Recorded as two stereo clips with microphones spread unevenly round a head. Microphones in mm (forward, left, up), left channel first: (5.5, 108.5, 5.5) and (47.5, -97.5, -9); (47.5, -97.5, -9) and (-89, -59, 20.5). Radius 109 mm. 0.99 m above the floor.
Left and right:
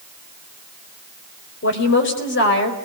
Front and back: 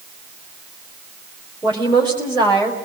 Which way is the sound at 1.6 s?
65° left.